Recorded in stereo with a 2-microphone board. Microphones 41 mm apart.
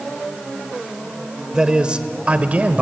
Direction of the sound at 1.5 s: 20° right (ahead or behind).